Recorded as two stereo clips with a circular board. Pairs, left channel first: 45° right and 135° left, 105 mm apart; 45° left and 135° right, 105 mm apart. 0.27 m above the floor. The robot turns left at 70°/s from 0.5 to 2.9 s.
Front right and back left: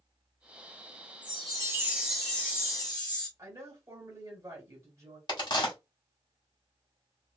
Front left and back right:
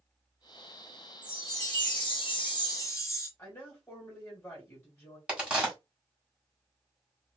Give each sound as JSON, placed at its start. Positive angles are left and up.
{"t": 1.2, "sound": "a chime", "azimuth_deg": 110, "distance_m": 1.3}
{"t": 3.4, "sound": "a woman speaking", "azimuth_deg": 95, "distance_m": 1.2}
{"t": 5.3, "sound": "a crack", "azimuth_deg": -60, "distance_m": 1.5}